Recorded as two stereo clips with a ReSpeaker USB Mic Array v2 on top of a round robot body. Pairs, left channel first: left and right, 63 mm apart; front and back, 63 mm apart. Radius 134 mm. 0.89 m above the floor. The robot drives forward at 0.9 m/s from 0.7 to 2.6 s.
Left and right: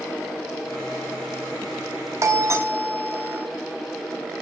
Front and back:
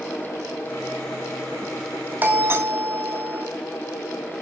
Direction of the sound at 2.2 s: 120° right.